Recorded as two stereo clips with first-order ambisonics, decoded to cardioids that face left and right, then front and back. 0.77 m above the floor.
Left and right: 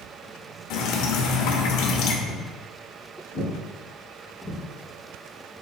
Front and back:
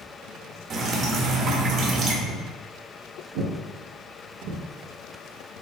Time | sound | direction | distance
0.7 | dripping | 125° left | 0.8 m
2.2 | footsteps | 140° left | 2 m